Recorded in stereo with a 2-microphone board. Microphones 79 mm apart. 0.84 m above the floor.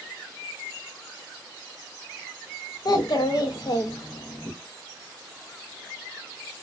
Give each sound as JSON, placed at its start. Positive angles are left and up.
{"t": 2.9, "sound": "a child speaking", "side_deg": 55, "distance_m": 0.6}